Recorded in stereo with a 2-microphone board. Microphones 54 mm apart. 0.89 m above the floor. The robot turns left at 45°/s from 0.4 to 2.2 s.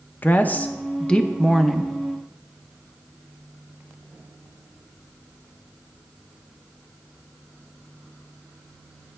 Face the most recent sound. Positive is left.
turn(degrees=-20)